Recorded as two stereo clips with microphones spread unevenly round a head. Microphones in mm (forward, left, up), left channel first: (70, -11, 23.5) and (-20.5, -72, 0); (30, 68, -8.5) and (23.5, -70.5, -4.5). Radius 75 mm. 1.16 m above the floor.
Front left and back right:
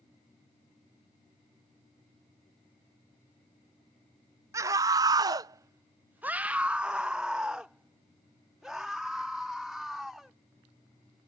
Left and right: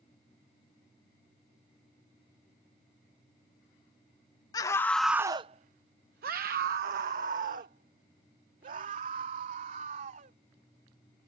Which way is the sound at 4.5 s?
155° left.